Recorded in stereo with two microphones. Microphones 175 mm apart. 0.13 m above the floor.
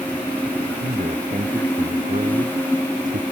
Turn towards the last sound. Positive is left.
turn(degrees=-50)  # may be behind; listen again after turning